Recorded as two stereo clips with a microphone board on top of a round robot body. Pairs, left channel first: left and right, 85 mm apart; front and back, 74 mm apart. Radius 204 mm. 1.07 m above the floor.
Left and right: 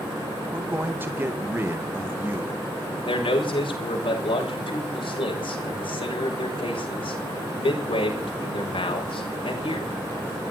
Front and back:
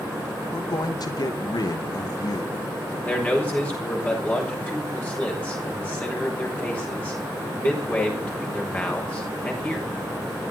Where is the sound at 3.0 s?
70° left, 6.5 m.